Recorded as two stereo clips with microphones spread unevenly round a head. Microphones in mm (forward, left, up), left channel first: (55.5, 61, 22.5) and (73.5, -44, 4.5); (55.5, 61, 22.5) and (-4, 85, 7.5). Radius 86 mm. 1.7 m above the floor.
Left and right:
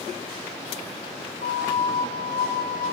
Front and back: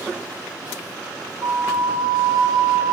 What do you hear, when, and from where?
1.4 s a flute: 155° left, 1.0 m